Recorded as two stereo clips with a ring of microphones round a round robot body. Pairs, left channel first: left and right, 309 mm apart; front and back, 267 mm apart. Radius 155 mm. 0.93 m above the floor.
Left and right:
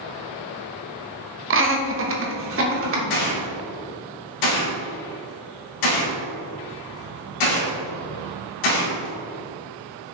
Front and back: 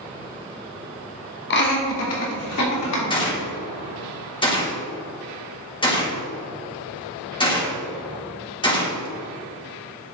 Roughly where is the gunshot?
Left.